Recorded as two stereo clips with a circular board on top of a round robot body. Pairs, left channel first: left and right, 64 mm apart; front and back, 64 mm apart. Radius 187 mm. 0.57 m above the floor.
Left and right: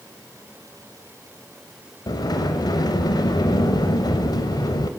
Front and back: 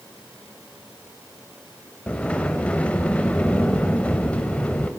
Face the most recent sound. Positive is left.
turn(degrees=70)